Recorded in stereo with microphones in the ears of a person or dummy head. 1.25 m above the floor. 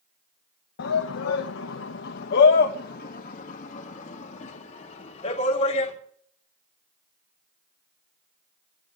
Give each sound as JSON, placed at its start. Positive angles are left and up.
{"t": 0.8, "sound": "a shout", "side_deg": 70, "distance_m": 0.9}